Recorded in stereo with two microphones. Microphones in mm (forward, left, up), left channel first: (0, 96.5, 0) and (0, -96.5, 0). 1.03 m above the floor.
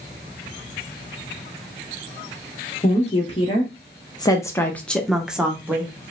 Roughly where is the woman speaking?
Left.